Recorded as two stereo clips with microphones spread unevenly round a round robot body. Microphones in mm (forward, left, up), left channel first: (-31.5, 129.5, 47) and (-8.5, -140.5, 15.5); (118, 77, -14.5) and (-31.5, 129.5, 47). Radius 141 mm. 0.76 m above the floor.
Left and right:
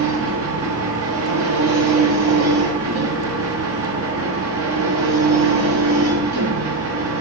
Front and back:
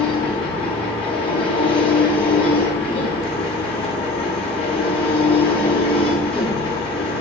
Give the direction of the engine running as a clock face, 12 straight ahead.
2 o'clock.